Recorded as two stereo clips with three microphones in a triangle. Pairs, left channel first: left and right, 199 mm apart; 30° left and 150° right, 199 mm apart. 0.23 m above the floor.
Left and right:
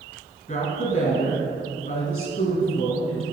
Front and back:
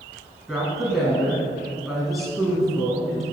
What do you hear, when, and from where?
0.5 s a woman speaking: 120° left, 1.8 m